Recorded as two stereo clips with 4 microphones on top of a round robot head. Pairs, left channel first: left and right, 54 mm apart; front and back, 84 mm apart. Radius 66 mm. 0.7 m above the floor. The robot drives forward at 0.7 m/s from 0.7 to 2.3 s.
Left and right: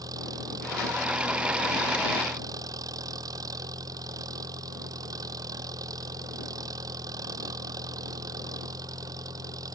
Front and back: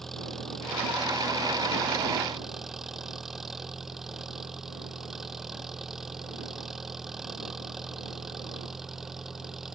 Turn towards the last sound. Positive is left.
turn(degrees=-95)